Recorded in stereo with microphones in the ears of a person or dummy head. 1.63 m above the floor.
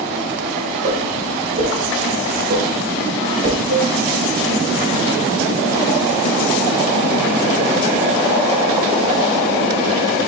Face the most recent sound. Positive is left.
turn(degrees=-50)  # may be behind; listen again after turning